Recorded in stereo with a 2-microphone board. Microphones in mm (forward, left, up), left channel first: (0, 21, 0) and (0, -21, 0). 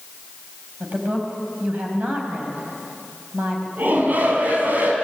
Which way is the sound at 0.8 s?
40° right (ahead or behind).